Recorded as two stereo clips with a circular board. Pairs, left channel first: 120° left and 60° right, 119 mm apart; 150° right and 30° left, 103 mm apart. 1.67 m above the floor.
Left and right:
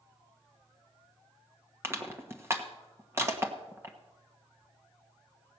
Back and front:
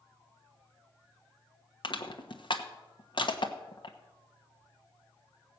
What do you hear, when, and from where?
1.8 s crushing: 125° right, 1.2 m